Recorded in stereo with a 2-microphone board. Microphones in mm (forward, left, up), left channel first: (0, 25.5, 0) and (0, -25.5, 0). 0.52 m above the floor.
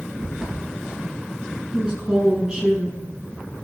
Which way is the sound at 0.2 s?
10° right (ahead or behind).